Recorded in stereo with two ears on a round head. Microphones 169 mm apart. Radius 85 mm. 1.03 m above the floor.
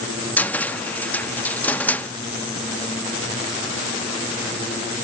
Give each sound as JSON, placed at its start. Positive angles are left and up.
{"t": 0.4, "sound": "a cupboard door", "side_deg": 10, "distance_m": 0.5}